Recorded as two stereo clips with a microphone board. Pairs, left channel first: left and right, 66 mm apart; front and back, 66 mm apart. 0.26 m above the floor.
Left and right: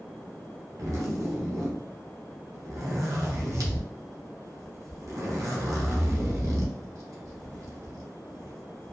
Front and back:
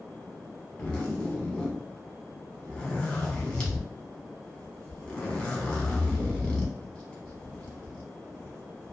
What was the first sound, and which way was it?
A zipper, 70° right.